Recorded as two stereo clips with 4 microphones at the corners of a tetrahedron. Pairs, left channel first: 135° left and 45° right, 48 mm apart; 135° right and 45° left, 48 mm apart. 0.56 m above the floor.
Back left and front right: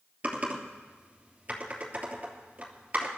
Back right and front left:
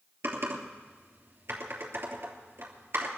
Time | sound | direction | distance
0.2 | typing on a keyboard | 15° left | 3 m